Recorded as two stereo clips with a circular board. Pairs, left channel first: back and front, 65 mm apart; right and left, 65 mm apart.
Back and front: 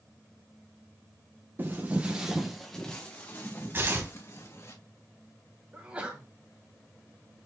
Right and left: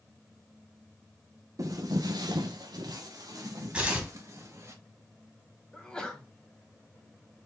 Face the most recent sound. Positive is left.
turn(degrees=-35)